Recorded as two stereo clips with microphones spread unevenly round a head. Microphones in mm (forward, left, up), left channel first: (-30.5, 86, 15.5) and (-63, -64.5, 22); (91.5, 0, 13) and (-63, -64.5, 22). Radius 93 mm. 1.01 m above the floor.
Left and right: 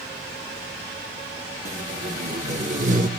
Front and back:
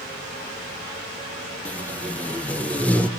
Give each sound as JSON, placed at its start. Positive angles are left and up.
{"t": 1.6, "sound": "tape being pulled", "azimuth_deg": -60, "distance_m": 0.9}